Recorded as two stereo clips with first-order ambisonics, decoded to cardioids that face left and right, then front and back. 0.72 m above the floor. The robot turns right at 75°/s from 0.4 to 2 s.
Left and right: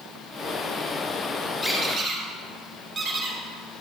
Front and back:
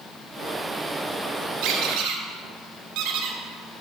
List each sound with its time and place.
1.6 s a squeak: 165° left, 2 m; by 3.8 s 165° right, 2 m